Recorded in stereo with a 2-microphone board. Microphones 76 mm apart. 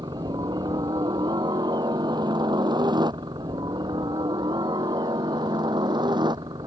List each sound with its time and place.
0.0 s a helicopter: 65° right (ahead or behind); by 6.7 s 70° right (ahead or behind)